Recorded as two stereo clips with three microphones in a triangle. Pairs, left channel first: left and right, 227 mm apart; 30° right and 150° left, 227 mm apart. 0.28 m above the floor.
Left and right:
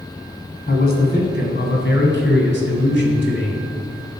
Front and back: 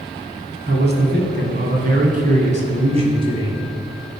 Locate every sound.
0.7 s a man speaking: 125° left, 3 m; by 3.6 s 80° left, 2.5 m